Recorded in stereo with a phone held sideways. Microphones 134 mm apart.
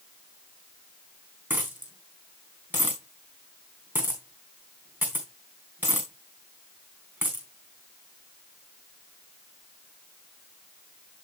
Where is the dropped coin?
15° right (ahead or behind), 4 m.